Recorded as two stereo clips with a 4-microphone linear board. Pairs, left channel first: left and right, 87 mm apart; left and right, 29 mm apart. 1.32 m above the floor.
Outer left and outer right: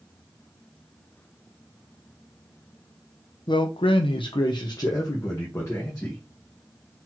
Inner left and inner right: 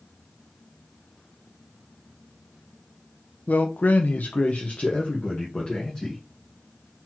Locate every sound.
3.5 s a man speaking: 60° left (ahead or behind), 0.5 m; by 6.2 s 30° left (ahead or behind), 1.5 m